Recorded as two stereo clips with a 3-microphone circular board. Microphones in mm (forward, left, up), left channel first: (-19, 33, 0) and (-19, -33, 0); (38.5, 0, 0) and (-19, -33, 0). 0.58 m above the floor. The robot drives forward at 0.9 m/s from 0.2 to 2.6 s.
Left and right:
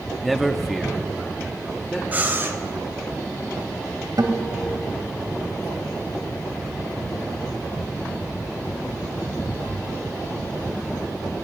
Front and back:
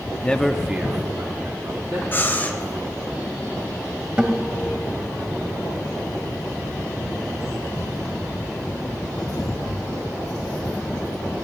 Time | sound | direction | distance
0.2 | a man speaking | straight ahead | 0.6 m
2.1 | breathing | 25° right | 1.4 m
4.2 | a guitar | 75° right | 1.1 m